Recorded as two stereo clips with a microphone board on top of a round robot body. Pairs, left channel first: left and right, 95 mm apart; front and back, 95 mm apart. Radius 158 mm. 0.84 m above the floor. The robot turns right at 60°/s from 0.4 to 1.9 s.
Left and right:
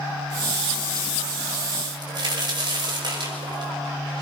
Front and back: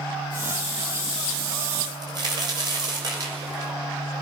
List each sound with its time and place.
1.8 s a crack: 140° right, 6 m; by 3.7 s 135° right, 6 m